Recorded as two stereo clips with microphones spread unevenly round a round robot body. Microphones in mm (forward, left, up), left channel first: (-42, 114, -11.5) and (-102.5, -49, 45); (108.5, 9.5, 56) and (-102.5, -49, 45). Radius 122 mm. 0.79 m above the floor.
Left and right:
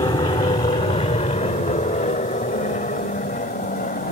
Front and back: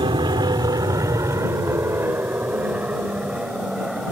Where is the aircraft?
130° left; by 4.1 s 110° left.